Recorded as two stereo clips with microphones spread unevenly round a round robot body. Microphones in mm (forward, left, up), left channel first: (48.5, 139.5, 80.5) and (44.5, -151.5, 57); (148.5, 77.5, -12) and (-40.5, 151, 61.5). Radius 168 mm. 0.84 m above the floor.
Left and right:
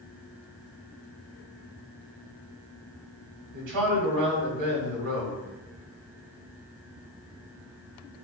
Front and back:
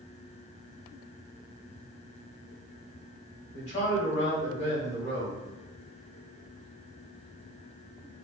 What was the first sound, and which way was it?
A man speaking, 80° right.